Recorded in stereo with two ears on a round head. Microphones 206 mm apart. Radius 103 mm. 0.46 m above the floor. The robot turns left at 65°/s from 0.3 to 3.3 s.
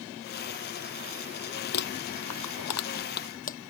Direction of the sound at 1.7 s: 45° left (ahead or behind).